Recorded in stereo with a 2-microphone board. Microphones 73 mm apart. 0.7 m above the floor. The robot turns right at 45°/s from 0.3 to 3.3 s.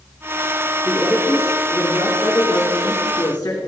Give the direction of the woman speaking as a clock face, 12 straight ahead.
12 o'clock.